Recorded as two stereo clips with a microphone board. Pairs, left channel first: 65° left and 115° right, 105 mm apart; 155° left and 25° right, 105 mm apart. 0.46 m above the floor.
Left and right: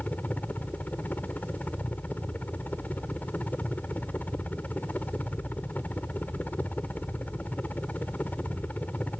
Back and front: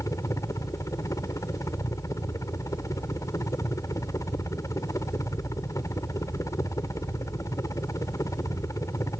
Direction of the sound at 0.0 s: 130° left.